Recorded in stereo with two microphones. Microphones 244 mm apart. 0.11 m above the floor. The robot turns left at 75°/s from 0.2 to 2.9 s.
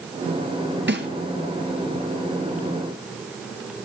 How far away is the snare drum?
About 1.1 m.